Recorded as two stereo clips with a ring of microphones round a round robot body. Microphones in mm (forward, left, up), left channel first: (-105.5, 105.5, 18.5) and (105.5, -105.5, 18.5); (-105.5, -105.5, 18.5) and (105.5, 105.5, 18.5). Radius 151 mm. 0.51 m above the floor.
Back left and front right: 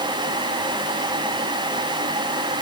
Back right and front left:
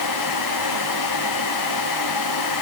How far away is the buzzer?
No buzzer in this recording.